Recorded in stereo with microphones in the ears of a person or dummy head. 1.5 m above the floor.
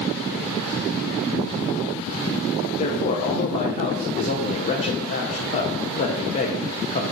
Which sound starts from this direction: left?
A man speaking, at 2.8 s.